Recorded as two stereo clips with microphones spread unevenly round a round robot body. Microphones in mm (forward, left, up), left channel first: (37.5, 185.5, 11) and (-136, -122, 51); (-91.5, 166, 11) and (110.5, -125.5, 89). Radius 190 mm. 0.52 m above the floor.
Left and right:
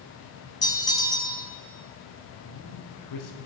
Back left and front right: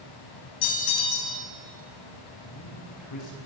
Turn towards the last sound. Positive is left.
turn(degrees=90)